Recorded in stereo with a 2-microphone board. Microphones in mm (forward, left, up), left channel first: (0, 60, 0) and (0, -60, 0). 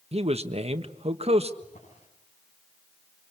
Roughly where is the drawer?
Left.